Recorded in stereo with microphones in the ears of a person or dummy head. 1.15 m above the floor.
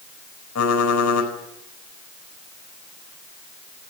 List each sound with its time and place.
0.6 s typing on a keyboard: 85° left, 4.5 m